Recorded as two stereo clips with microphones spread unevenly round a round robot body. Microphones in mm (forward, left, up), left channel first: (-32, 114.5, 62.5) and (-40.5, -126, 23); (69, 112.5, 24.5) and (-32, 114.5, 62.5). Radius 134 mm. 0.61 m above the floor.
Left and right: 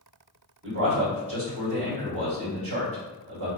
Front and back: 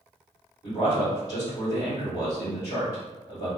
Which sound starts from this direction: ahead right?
A man speaking, at 0.6 s.